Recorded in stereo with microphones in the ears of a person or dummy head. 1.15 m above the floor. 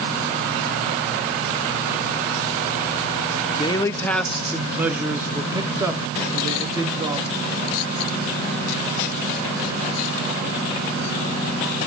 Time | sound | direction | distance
3.5 | a man speaking | 25° left (ahead or behind) | 0.8 m